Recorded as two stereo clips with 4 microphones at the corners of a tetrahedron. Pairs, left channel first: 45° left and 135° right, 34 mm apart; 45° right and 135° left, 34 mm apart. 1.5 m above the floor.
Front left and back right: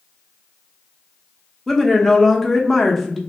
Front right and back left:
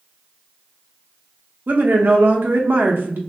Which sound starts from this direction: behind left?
A woman speaking, at 1.7 s.